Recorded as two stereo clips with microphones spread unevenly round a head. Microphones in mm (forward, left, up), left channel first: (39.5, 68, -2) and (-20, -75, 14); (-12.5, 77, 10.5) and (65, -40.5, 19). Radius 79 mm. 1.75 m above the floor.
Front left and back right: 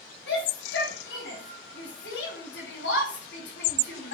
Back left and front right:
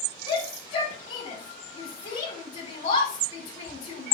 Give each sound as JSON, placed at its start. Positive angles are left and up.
{"t": 0.3, "sound": "a shout", "azimuth_deg": 90, "distance_m": 5.5}